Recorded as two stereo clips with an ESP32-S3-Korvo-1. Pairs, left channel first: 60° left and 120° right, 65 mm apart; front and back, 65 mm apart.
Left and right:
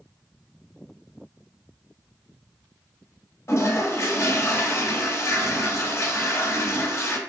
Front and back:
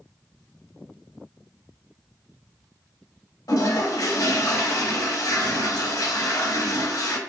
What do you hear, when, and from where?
3.5 s a toilet flushing: 20° left, 0.5 m